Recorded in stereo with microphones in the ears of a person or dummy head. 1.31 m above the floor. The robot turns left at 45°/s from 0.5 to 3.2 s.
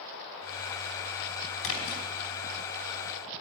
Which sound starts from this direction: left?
A splash, at 1.6 s.